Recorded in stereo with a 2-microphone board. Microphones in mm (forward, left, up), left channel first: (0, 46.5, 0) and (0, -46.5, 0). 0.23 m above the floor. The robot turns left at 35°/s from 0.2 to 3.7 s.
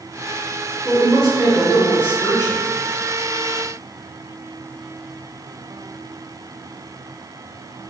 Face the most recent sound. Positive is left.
turn(degrees=85)